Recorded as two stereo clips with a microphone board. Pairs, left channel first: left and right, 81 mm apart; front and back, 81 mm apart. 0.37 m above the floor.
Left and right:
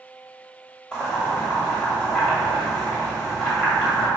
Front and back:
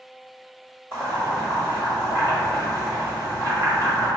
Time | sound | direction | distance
0.9 | boiling | 155° left | 1.4 m